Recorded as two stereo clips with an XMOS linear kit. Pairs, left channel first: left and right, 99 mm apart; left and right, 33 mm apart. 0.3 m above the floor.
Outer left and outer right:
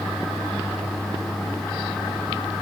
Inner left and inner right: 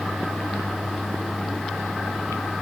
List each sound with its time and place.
Only background noise.